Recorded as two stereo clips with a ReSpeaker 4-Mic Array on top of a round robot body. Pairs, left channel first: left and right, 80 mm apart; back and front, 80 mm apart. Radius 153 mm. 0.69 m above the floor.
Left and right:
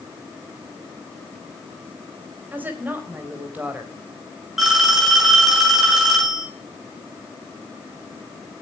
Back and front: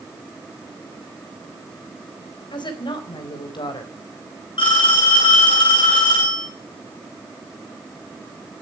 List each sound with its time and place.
2.5 s a woman speaking: 160° right, 4 m
4.6 s a phone ringing: 175° right, 7.5 m